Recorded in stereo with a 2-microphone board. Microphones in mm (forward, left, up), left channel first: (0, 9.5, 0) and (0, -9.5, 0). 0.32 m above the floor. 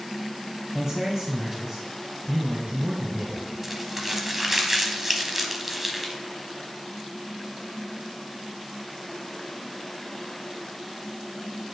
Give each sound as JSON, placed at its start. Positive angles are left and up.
{"t": 0.7, "sound": "a man speaking", "side_deg": -25, "distance_m": 1.4}
{"t": 3.6, "sound": "crumpling", "side_deg": -15, "distance_m": 0.9}